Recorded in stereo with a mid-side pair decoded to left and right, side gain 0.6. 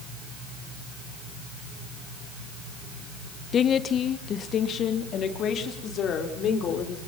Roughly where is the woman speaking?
Ahead left.